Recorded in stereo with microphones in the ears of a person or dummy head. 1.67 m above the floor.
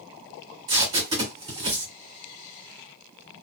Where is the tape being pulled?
25° right (ahead or behind), 1.6 m.